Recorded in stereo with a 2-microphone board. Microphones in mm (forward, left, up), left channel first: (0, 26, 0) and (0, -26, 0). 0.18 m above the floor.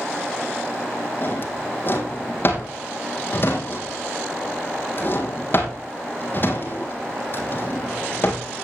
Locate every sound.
1.2 s a drawer: 45° left (ahead or behind), 3 m